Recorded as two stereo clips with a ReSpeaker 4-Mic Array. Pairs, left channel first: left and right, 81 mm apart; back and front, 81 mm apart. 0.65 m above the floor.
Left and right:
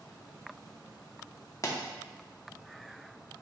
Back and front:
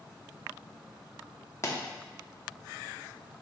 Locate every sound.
1.6 s a pop: 135° left, 0.7 m